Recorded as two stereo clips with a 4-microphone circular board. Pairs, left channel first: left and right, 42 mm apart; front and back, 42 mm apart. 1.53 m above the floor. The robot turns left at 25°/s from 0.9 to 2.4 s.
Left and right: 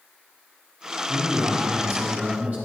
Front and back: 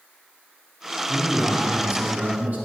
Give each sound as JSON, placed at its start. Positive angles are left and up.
{"t": 1.1, "sound": "a man speaking", "azimuth_deg": -110, "distance_m": 3.5}